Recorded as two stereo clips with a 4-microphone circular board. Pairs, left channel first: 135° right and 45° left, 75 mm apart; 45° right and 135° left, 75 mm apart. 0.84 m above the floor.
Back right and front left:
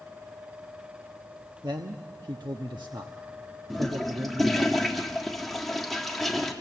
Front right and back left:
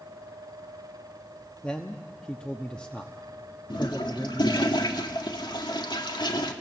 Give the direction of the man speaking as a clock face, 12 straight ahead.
11 o'clock.